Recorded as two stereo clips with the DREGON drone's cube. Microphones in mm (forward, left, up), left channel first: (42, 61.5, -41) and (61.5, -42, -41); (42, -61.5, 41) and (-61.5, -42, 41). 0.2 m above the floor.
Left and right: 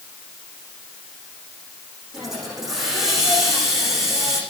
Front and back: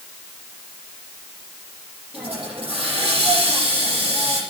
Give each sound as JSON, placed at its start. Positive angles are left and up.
{"t": 2.1, "sound": "a hiss", "azimuth_deg": -165, "distance_m": 9.5}